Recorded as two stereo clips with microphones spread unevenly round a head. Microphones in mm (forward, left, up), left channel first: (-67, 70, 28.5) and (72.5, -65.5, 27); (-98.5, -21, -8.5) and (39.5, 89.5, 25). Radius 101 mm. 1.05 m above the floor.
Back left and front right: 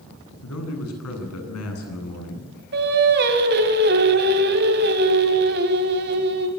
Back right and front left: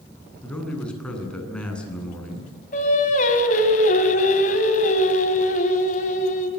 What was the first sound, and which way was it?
A man speaking, 135° left.